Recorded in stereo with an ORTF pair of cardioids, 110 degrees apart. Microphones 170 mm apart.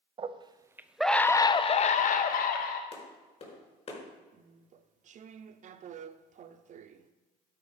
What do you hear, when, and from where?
0.2 s a scream: 35° right, 1.0 m; by 2.8 s 70° left, 1.2 m
2.9 s a clap: 40° left, 5 m
4.3 s chewing: 50° right, 0.7 m